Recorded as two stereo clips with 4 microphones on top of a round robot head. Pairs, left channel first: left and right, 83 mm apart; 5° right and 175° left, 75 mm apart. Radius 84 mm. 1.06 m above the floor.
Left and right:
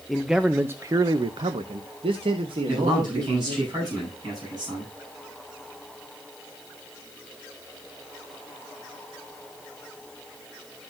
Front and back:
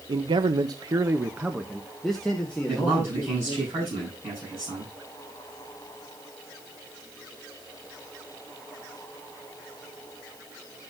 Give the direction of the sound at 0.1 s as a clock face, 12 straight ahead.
6 o'clock.